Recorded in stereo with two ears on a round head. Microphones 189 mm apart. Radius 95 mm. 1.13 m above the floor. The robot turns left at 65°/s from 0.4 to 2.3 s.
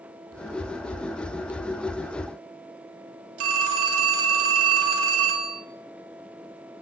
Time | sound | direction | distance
3.4 | a phone ringing | 80° right | 3.5 m